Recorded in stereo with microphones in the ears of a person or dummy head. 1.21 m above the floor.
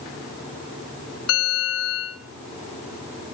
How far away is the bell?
About 4 m.